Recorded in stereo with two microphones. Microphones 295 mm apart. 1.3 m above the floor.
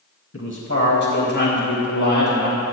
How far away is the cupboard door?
No cupboard door in this recording.